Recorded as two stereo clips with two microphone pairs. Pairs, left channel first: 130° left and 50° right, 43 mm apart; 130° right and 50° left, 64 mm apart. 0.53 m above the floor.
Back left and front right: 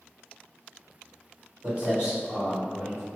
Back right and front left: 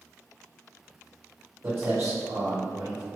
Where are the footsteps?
5° left, 1.4 m; by 3.0 s 55° left, 1.6 m.